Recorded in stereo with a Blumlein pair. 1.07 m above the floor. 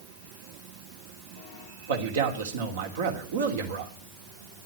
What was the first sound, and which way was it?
A man speaking, 60° right.